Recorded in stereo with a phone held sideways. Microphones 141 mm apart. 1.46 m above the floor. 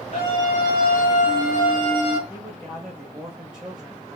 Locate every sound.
0.1 s a scream: 45° left (ahead or behind), 1.3 m; by 2.2 s 35° left (ahead or behind), 1.4 m
2.3 s a man speaking: 5° right (ahead or behind), 1.6 m